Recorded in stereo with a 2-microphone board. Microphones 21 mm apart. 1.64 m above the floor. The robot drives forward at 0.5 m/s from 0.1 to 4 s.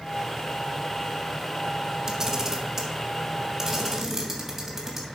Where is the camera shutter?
20° right (ahead or behind), 1.9 m; by 5.0 s 15° right (ahead or behind), 3 m.